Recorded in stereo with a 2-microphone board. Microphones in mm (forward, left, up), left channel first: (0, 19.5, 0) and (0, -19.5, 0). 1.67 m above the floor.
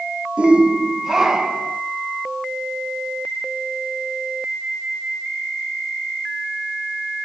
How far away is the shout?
About 1.3 m.